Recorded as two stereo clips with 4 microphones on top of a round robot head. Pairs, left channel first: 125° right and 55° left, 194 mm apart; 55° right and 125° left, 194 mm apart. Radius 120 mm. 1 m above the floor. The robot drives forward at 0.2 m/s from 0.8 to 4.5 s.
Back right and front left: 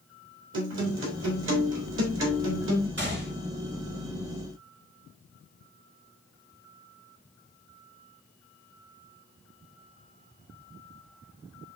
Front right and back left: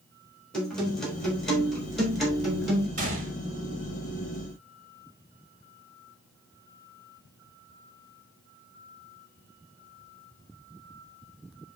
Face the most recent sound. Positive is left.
turn(degrees=80)